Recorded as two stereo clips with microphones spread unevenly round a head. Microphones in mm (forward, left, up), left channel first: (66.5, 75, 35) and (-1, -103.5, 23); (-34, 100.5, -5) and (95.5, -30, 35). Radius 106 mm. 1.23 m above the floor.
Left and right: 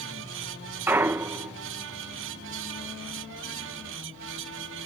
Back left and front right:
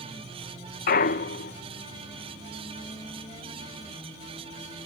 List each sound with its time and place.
0.9 s a clunk: 170° left